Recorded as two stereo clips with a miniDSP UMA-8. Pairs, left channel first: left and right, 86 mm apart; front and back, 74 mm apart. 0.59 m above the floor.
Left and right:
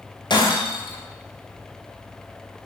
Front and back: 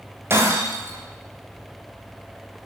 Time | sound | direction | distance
0.3 | breaking glass | 120° left | 9 m